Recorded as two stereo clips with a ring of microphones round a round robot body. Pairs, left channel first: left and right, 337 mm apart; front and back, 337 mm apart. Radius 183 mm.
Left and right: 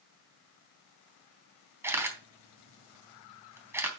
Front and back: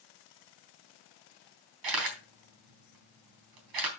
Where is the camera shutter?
175° right, 3.5 m.